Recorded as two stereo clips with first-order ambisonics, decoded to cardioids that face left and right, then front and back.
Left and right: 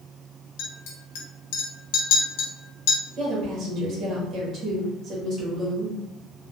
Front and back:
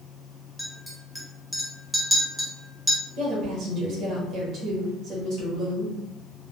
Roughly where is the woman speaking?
Behind right.